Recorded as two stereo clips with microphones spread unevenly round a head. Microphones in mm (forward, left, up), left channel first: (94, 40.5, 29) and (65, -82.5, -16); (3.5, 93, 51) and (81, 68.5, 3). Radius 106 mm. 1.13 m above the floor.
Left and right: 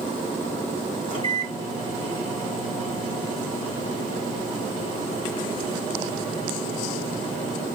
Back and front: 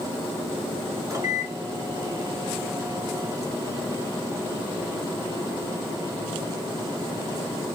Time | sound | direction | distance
1.1 | a microwave | 25° left | 2 m